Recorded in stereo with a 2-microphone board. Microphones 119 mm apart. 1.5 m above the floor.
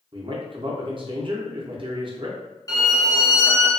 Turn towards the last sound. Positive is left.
turn(degrees=30)  # may be behind; listen again after turning